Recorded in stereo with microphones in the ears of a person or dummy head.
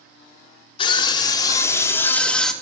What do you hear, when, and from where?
0.8 s a scream: 30° left (ahead or behind), 3.5 m; by 2.5 s 5° left (ahead or behind), 3 m